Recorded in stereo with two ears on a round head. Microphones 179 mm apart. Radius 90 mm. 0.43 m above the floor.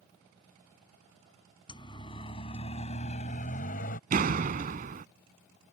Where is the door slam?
40° right (ahead or behind).